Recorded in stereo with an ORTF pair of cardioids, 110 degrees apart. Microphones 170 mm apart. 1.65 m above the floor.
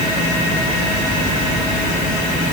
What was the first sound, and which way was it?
Only background noise.